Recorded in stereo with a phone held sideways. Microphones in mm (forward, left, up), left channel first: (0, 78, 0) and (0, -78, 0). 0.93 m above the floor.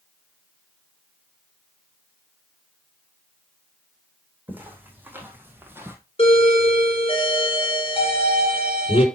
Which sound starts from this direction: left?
A doorbell, at 6.2 s.